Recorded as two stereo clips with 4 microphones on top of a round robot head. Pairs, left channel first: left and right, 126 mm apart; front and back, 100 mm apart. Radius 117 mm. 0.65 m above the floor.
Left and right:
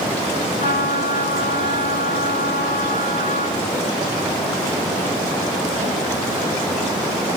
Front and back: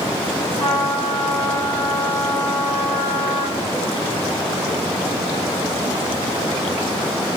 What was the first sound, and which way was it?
A trumpet, 75° left.